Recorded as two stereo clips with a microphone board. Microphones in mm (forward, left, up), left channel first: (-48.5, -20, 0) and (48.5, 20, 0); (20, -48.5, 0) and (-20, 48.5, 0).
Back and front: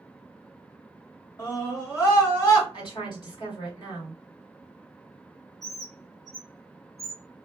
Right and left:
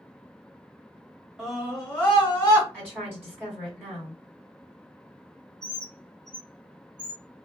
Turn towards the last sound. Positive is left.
turn(degrees=-65)